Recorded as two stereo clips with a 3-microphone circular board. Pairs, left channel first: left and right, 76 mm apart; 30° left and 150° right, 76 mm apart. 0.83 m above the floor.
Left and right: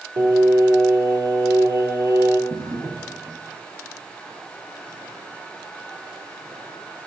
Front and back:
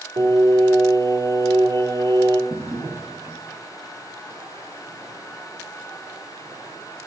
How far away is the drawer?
About 2.5 m.